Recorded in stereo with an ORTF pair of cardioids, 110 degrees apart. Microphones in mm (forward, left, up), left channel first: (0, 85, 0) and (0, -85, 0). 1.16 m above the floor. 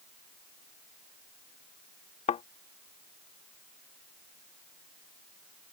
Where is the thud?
45° left.